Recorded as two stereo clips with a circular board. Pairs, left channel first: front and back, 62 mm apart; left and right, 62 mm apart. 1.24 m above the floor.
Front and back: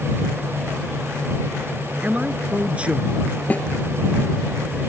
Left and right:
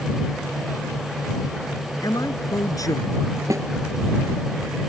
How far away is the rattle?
No rattle in this recording.